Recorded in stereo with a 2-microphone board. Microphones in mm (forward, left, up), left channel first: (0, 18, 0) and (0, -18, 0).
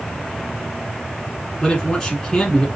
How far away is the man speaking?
About 1.1 m.